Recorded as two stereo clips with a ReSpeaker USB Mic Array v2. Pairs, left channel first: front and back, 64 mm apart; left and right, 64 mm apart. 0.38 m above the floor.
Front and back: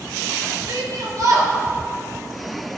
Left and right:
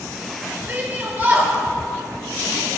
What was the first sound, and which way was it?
A shout, 160° right.